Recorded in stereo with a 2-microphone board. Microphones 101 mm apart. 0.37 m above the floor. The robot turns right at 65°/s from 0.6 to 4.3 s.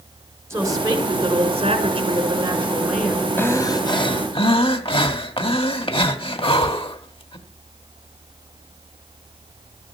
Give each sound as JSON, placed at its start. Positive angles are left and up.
{"t": 0.5, "sound": "a woman speaking", "azimuth_deg": -150, "distance_m": 4.5}
{"t": 3.4, "sound": "breathing", "azimuth_deg": 25, "distance_m": 1.8}